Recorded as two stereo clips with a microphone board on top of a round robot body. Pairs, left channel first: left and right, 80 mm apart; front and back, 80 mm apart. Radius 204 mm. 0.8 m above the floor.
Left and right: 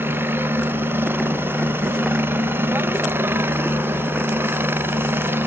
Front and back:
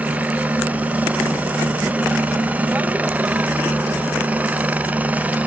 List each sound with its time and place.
0.0 s a helicopter: 125° right